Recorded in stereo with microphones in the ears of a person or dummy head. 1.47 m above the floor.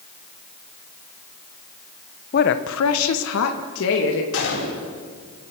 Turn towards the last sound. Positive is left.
turn(degrees=80)